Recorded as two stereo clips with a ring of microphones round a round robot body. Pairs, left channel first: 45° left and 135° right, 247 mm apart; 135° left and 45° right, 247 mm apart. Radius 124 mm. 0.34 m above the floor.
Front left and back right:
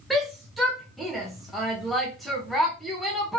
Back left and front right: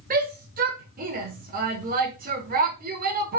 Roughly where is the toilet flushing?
I don't hear a toilet flushing.